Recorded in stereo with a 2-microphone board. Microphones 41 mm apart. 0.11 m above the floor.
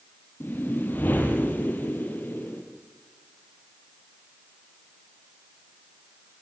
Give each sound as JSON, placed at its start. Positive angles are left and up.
{"t": 0.4, "sound": "a whoosh", "side_deg": 45, "distance_m": 3.0}